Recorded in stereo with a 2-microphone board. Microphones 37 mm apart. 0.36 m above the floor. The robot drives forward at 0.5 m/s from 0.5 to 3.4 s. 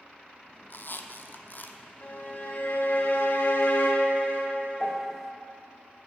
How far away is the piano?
About 0.6 m.